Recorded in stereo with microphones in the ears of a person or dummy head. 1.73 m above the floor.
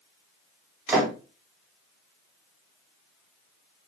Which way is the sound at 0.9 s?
15° right (ahead or behind).